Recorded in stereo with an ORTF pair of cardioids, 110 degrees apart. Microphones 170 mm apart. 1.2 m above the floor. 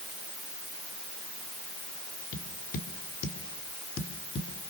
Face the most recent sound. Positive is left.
turn(degrees=65)